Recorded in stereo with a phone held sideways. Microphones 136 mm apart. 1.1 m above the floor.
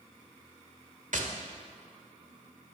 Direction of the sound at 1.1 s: 70° right (ahead or behind).